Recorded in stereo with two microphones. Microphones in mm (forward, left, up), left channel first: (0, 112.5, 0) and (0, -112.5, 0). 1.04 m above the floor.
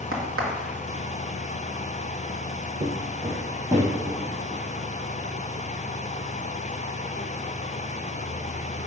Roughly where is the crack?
Right.